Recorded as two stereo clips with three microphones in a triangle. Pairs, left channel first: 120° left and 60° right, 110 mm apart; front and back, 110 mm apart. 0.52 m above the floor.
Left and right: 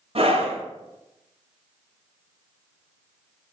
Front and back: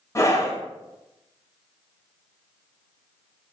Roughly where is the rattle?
I don't hear a rattle.